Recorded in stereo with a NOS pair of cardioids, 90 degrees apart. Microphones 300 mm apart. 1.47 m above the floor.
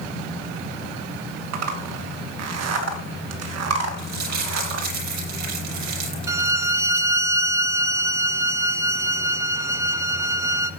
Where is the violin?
10° right, 1.1 m.